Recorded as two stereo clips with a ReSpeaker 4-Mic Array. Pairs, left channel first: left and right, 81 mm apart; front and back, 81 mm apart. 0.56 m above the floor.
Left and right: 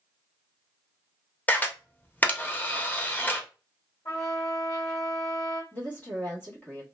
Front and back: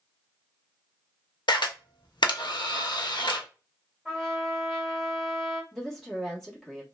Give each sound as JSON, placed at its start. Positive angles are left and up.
{"t": 1.5, "sound": "a camera shutter", "azimuth_deg": 20, "distance_m": 0.5}
{"t": 4.0, "sound": "a trumpet", "azimuth_deg": 90, "distance_m": 1.7}
{"t": 5.7, "sound": "a woman speaking", "azimuth_deg": 75, "distance_m": 1.2}